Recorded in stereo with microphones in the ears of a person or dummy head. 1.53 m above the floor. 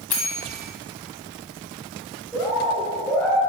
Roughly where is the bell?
Centre.